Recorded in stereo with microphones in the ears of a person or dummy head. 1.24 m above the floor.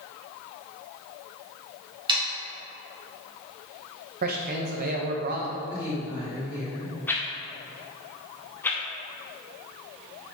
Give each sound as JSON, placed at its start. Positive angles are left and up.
{"t": 2.1, "sound": "sawing", "side_deg": -25, "distance_m": 1.5}
{"t": 4.2, "sound": "a man speaking", "side_deg": -45, "distance_m": 0.8}
{"t": 5.7, "sound": "a woman speaking", "side_deg": -10, "distance_m": 1.9}
{"t": 7.1, "sound": "a whoosh", "side_deg": 10, "distance_m": 0.7}